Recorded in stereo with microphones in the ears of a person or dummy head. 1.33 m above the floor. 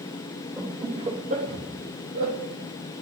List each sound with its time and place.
0.6 s laughter: 15° right (ahead or behind), 2.5 m; by 2.4 s 75° right (ahead or behind), 3 m